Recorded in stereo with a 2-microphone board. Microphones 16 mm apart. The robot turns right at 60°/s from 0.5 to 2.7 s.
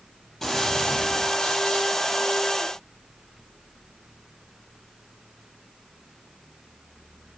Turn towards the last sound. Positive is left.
turn(degrees=165)